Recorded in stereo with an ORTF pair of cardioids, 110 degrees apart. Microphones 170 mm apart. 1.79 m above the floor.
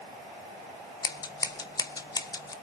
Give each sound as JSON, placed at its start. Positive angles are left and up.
{"t": 1.0, "sound": "scissors", "azimuth_deg": 20, "distance_m": 1.7}